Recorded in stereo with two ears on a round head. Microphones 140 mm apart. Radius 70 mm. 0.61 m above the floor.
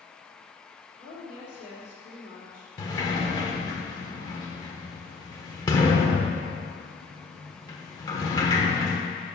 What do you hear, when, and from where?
1.0 s a woman speaking: 50° left (ahead or behind), 1.9 m
2.8 s a sliding door: 25° left (ahead or behind), 1.0 m